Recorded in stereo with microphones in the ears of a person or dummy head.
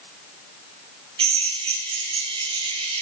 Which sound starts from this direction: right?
A drill, at 1.2 s.